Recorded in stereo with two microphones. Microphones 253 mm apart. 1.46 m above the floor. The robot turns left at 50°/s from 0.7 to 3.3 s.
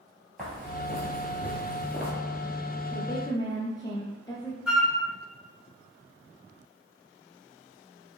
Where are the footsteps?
5° left (ahead or behind), 1.7 m.